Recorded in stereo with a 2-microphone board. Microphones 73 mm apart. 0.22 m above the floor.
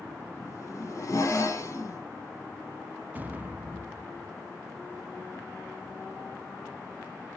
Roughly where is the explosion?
Right.